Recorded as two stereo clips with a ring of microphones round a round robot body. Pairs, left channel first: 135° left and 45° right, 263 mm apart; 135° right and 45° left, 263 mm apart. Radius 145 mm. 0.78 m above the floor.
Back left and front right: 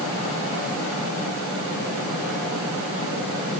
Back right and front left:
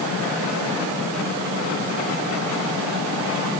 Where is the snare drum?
No snare drum in this recording.